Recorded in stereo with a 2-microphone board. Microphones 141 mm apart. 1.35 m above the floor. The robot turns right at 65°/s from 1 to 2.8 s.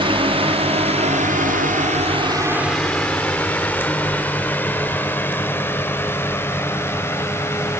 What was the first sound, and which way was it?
A drone, 40° right (ahead or behind).